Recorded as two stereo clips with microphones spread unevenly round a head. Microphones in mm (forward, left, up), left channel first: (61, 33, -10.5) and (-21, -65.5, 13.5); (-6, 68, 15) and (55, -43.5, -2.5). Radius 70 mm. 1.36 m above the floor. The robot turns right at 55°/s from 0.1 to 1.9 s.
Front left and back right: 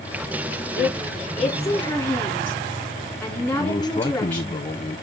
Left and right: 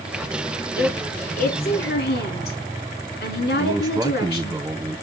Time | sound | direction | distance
0.8 | a woman speaking | 65° left | 3.5 m
3.6 | a man speaking | 5° left | 0.9 m